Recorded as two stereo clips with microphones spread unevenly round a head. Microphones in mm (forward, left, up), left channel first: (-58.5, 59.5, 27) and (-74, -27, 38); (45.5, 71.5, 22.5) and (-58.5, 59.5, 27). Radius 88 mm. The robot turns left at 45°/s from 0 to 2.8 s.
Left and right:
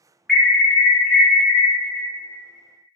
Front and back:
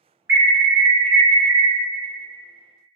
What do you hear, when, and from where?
0.3 s an alarm: 150° left, 1.0 m; by 1.7 s 85° left, 1.0 m